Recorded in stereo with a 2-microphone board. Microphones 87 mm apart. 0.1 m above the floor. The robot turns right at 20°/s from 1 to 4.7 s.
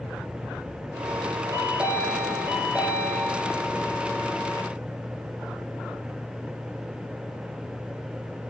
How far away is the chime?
About 1.1 m.